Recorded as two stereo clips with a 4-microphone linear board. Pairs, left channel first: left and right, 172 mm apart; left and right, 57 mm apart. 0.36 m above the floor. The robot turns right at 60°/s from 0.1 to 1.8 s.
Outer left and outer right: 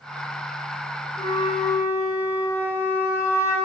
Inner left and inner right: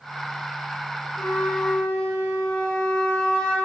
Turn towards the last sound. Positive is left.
turn(degrees=15)  # may be behind; listen again after turning